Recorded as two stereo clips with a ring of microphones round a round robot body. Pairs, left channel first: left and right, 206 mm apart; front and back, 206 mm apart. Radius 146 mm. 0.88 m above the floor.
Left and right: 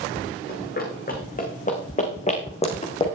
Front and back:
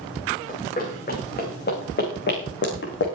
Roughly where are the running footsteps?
Ahead left.